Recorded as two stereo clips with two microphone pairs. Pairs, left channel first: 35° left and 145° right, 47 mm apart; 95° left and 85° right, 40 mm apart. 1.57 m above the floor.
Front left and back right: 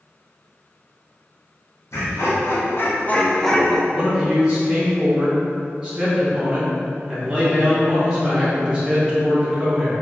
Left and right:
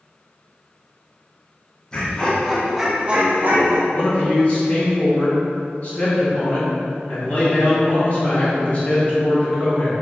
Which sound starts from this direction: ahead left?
Laughter, at 1.9 s.